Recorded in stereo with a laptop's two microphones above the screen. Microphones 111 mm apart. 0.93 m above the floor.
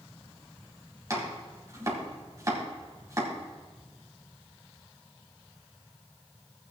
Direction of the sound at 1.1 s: 30° right (ahead or behind).